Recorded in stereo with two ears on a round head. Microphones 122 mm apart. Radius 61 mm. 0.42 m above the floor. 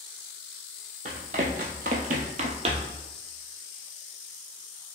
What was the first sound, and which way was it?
Running footsteps, 50° right (ahead or behind).